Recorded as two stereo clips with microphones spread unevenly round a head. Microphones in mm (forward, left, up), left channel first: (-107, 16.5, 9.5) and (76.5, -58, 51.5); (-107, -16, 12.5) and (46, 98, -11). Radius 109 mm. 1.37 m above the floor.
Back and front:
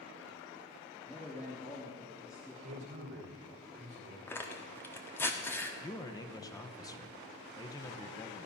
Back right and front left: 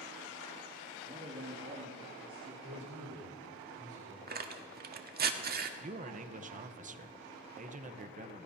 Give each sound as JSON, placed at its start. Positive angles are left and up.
{"t": 1.1, "sound": "a man speaking", "azimuth_deg": 80, "distance_m": 2.5}
{"t": 2.6, "sound": "a man speaking", "azimuth_deg": 10, "distance_m": 5.0}
{"t": 4.3, "sound": "tearing paper", "azimuth_deg": 70, "distance_m": 1.2}
{"t": 5.8, "sound": "a man speaking", "azimuth_deg": 85, "distance_m": 1.0}